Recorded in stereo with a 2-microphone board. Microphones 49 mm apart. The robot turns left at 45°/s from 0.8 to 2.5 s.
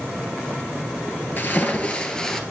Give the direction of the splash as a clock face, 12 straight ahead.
10 o'clock.